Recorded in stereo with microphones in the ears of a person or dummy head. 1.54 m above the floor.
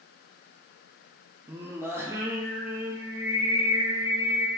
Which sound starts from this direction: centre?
Singing, at 1.5 s.